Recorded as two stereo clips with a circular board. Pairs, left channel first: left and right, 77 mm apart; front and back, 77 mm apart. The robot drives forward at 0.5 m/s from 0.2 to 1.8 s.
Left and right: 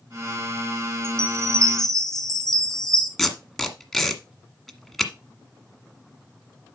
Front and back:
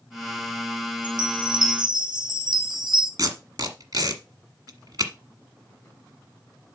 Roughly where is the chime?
Behind.